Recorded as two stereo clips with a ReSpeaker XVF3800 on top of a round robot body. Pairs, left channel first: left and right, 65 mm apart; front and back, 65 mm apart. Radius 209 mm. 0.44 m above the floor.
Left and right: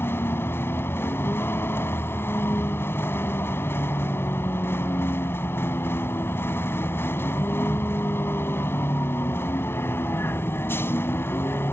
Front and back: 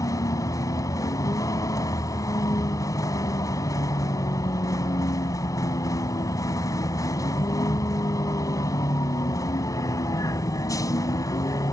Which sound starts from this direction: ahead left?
A vehicle, at 0.0 s.